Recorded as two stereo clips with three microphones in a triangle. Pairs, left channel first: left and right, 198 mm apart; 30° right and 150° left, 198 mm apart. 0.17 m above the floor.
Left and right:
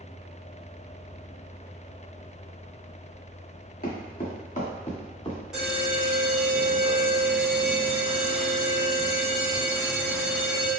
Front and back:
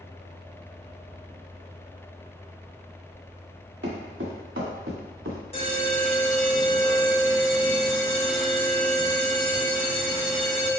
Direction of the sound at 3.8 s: 130° left.